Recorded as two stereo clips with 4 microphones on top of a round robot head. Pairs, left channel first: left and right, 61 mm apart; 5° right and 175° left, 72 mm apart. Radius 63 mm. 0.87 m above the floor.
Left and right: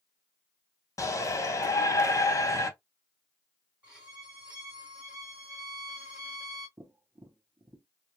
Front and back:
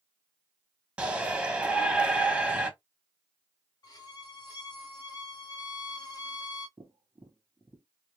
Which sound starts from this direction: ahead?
A violin, at 3.8 s.